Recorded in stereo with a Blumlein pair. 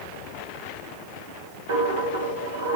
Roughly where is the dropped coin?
Ahead right.